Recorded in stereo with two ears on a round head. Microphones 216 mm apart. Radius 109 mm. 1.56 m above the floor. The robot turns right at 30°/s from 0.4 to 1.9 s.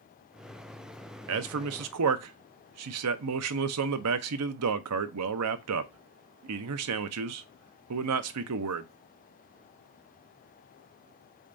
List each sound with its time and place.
1.3 s a man speaking: 65° right (ahead or behind), 0.5 m; by 8.9 s 75° right (ahead or behind), 0.5 m